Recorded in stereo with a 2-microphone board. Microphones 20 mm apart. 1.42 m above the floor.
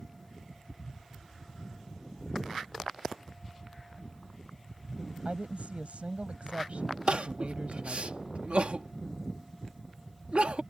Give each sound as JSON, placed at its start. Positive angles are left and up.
{"t": 5.2, "sound": "a woman speaking", "side_deg": -80}
{"t": 7.1, "sound": "crying", "side_deg": -80}